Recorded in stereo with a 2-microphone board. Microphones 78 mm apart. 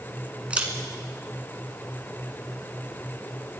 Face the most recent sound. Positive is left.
turn(degrees=-15)  # may be behind; listen again after turning